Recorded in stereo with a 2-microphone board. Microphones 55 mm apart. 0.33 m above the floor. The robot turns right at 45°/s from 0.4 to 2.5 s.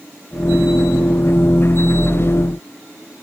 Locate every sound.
Only background noise.